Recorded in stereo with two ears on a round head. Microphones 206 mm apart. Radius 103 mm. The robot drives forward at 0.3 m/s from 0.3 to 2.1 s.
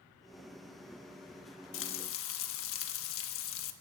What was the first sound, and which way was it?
Frying, 55° left (ahead or behind).